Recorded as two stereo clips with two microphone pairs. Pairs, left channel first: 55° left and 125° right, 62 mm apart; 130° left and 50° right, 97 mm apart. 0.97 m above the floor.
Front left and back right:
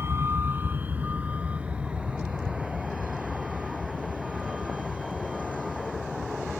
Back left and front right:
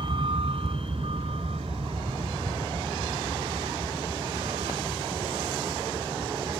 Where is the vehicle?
80° right; by 6.6 s 40° right.